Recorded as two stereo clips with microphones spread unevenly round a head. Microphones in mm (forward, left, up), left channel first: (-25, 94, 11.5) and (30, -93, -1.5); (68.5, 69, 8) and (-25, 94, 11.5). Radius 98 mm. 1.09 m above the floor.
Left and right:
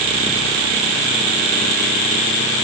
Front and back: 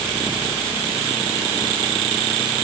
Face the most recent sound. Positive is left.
No sound to turn to.